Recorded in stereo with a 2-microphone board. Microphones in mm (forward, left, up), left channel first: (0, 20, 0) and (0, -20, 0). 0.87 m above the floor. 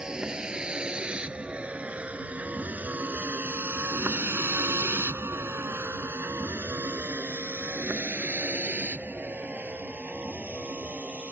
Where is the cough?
No cough in this recording.